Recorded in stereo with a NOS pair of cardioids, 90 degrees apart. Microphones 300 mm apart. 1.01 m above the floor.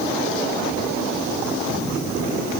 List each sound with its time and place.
Only background noise.